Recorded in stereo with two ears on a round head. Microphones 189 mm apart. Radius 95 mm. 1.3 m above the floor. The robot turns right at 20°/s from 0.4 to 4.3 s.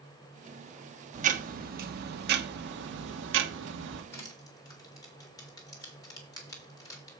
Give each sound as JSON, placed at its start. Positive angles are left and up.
{"t": 1.1, "sound": "ticking", "azimuth_deg": -135, "distance_m": 1.2}
{"t": 4.1, "sound": "crushing", "side_deg": 15, "distance_m": 2.5}